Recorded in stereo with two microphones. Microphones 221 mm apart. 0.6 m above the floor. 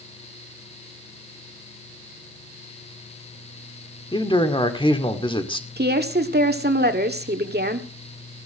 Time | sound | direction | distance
4.1 | a man speaking | 20° left (ahead or behind) | 1.9 m
5.8 | a woman speaking | 45° right (ahead or behind) | 1.9 m